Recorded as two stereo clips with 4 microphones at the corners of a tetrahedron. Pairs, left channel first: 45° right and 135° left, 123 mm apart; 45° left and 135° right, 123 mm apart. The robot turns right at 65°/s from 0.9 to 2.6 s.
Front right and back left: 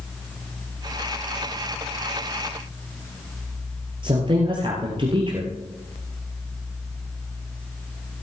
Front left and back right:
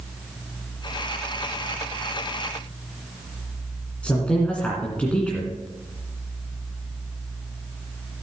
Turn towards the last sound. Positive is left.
turn(degrees=120)